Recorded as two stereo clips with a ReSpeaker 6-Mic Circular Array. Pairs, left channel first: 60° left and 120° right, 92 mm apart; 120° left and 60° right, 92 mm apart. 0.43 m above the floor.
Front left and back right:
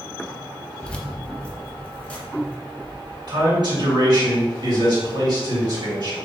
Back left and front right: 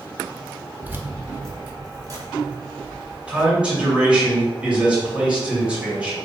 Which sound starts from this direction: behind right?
A man speaking, at 3.3 s.